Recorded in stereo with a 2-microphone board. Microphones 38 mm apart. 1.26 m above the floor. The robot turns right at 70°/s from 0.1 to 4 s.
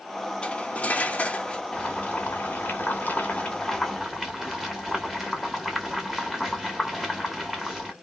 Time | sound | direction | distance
0.4 | cutlery clinking | 50° left | 0.7 m
1.7 | boiling | 30° left | 1.2 m